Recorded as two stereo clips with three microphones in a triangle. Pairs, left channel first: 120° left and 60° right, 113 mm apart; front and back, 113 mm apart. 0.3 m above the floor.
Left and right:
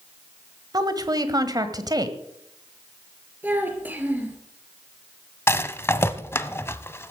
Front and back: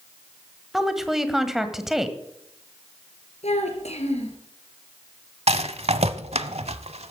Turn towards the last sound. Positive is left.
turn(degrees=-175)